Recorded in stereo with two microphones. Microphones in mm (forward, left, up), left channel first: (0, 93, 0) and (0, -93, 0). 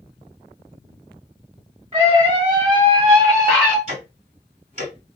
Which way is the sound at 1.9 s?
30° right (ahead or behind).